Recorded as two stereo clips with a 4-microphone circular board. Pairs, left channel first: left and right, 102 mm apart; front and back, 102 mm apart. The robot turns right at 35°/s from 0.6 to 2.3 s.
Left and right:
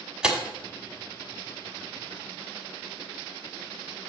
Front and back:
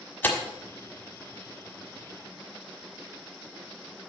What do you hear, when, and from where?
0.2 s tearing paper: 25° right, 1.3 m